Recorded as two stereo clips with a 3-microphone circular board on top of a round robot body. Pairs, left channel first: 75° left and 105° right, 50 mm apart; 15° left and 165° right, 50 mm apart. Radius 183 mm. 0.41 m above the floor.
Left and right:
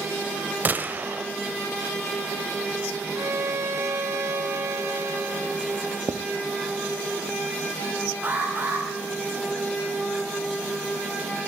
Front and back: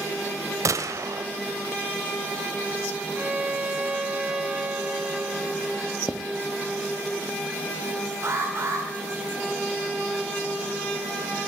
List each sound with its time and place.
0.7 s a gunshot: 160° right, 1.0 m
3.1 s a violin: 95° right, 2 m
6.1 s writing: 85° right, 0.5 m
8.2 s an alarm: 155° right, 6 m